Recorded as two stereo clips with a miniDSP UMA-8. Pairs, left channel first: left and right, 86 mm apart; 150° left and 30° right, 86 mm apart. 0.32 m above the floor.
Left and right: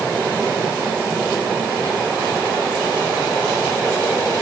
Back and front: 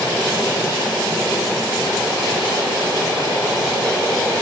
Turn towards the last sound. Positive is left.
No sound to turn to.